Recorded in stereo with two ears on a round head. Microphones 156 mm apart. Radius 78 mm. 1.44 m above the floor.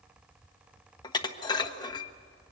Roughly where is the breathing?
No breathing in this recording.